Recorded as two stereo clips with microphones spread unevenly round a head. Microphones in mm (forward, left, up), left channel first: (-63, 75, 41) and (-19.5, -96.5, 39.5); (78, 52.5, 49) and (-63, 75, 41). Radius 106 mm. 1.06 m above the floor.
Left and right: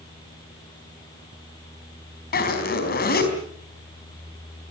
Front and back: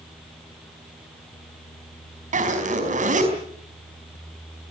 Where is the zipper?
140° left, 4.5 m.